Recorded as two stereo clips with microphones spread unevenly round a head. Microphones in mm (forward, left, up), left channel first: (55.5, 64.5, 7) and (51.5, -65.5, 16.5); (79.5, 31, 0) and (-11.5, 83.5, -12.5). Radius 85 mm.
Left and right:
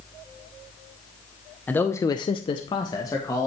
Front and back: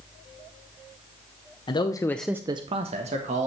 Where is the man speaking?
15° left, 0.9 m; by 3.5 s 160° left, 1.6 m.